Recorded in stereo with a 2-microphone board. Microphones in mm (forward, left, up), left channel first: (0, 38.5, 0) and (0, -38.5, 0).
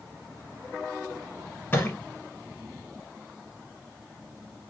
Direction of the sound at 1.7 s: 30° left (ahead or behind).